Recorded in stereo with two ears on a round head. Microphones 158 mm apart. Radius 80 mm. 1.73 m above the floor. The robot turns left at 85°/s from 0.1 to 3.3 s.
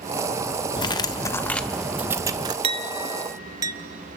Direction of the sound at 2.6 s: 30° right (ahead or behind).